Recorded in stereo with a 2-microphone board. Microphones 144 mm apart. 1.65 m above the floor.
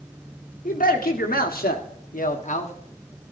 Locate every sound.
0.7 s a man speaking: 70° left (ahead or behind), 1.5 m; by 2.7 s 50° left (ahead or behind), 1.1 m